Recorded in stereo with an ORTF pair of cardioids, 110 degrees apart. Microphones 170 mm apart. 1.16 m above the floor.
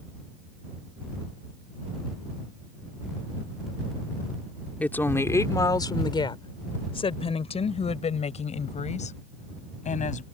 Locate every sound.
4.8 s a woman speaking: 10° left; by 10.2 s 45° left